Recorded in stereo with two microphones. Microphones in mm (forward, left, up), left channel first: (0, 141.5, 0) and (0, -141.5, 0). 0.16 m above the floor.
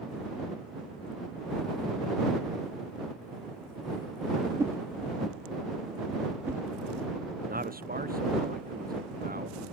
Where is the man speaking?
30° right (ahead or behind).